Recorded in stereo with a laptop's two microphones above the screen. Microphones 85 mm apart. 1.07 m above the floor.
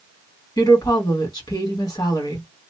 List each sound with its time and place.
0.6 s a woman speaking: 50° left (ahead or behind), 1.9 m